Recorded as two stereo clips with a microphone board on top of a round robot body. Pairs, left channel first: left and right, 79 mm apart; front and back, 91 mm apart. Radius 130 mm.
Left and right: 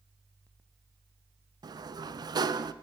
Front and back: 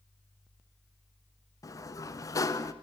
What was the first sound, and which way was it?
A sliding door, 55° right.